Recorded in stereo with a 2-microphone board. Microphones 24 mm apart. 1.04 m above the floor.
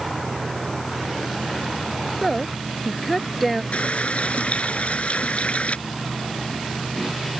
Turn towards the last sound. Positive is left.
turn(degrees=60)  # may be behind; listen again after turning